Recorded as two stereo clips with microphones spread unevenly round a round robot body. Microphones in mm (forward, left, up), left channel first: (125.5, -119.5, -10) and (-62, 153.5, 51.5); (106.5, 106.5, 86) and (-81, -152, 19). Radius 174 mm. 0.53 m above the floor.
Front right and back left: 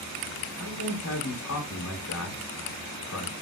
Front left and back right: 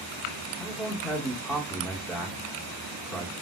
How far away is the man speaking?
About 1.1 m.